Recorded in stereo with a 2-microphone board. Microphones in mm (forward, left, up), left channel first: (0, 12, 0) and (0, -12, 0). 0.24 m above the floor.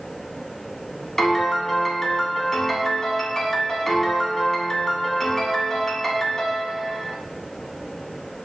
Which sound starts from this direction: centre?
A piano, at 1.2 s.